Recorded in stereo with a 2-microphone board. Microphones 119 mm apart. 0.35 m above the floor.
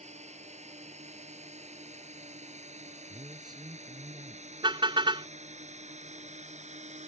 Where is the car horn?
45° right (ahead or behind).